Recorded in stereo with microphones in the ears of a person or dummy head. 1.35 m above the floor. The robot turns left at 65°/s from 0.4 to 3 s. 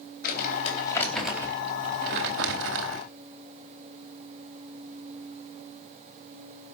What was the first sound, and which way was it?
Crumpling, 55° left.